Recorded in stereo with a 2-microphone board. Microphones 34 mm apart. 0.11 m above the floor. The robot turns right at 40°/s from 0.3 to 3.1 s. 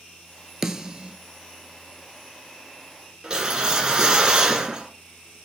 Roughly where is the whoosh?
Right.